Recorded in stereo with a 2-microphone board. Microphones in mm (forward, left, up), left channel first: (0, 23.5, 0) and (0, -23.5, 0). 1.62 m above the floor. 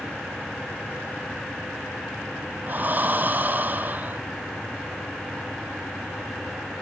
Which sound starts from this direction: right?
Breathing, at 2.7 s.